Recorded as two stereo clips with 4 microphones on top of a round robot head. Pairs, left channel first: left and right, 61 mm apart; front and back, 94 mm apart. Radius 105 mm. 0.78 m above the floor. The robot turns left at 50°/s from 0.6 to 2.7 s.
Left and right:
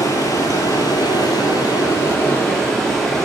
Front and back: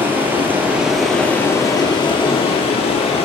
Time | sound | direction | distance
0.0 | running water | 110° left | 3.5 m